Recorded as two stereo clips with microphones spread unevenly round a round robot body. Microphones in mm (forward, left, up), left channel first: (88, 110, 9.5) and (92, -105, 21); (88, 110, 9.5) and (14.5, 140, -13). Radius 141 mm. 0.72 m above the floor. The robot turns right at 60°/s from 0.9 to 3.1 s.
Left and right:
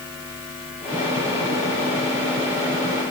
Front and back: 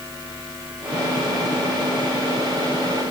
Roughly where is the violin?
No violin in this recording.